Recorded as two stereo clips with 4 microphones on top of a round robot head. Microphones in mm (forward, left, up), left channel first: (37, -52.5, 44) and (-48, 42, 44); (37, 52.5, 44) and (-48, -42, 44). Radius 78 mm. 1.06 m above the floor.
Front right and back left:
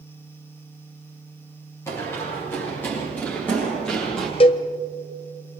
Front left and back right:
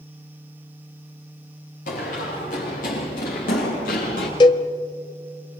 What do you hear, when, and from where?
1.9 s running footsteps: 20° left, 9.5 m; by 4.3 s 35° left, 9 m
4.4 s a cowbell: 5° right, 0.6 m